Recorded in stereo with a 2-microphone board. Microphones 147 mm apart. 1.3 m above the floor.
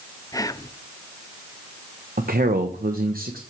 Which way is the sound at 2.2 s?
80° right.